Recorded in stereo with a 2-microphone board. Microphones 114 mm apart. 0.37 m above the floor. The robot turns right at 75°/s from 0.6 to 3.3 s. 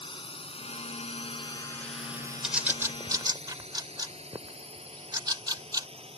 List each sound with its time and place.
0.0 s a drone: 50° left (ahead or behind); by 6.2 s 60° right (ahead or behind)
2.4 s a bird: 5° right (ahead or behind); by 5.9 s 35° right (ahead or behind)